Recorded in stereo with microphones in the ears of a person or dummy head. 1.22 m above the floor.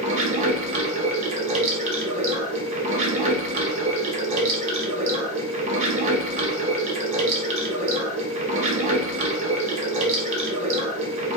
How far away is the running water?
About 0.8 m.